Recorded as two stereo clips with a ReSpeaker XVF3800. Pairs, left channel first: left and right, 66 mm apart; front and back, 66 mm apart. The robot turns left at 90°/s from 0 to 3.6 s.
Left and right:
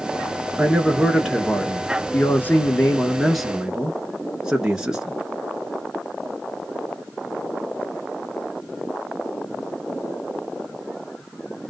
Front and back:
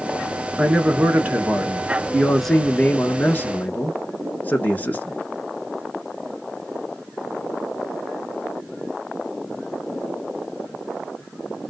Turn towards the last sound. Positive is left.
turn(degrees=-25)